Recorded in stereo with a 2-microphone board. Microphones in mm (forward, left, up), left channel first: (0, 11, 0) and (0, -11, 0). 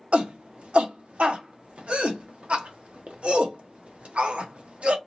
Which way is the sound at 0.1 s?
65° right (ahead or behind).